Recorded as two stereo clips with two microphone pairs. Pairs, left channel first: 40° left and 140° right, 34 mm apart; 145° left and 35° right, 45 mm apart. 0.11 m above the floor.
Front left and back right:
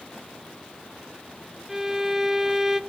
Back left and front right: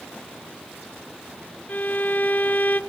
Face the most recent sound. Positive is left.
turn(degrees=155)